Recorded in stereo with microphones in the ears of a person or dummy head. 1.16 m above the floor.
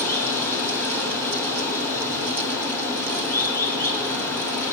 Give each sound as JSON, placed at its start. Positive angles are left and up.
{"t": 0.0, "sound": "running water", "side_deg": 10, "distance_m": 6.5}